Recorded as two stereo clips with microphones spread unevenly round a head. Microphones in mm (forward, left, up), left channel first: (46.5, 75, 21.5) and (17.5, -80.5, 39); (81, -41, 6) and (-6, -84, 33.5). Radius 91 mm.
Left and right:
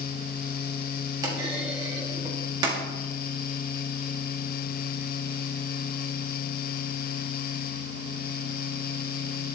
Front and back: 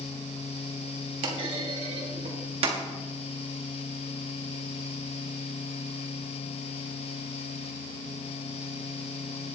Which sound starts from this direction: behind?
A clunk, at 1.2 s.